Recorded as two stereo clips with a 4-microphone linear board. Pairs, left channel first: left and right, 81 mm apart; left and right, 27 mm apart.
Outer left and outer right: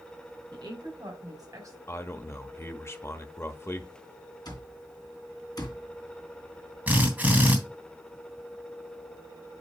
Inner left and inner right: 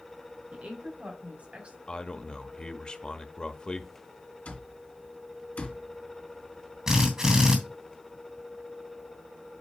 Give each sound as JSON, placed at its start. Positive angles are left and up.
{"t": 0.5, "sound": "a woman speaking", "side_deg": -65, "distance_m": 3.5}
{"t": 1.9, "sound": "a man speaking", "side_deg": 35, "distance_m": 0.9}
{"t": 4.5, "sound": "an alarm clock", "side_deg": 60, "distance_m": 3.0}
{"t": 6.9, "sound": "a drill", "side_deg": -20, "distance_m": 3.0}